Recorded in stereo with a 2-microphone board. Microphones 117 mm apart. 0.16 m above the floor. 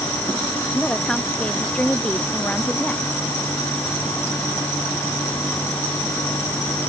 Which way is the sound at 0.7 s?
5° left (ahead or behind).